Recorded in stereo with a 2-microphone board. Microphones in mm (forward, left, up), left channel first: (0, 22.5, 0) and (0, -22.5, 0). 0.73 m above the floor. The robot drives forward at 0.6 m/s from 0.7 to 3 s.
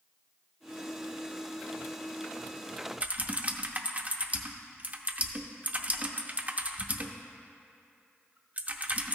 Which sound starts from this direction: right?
Typing on a keyboard, at 3.0 s.